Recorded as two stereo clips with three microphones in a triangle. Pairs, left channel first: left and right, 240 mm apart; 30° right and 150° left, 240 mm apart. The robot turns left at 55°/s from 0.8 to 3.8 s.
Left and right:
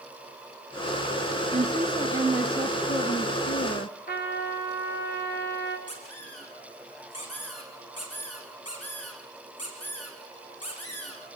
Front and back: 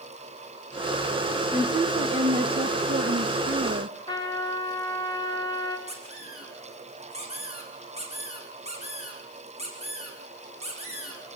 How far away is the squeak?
About 6.5 m.